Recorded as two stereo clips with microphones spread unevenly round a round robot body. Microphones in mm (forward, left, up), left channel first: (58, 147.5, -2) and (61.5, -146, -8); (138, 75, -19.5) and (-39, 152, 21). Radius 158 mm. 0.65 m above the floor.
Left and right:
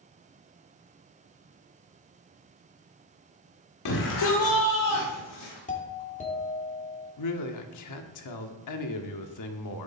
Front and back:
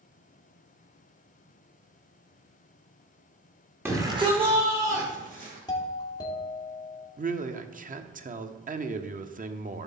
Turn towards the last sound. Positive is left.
turn(degrees=105)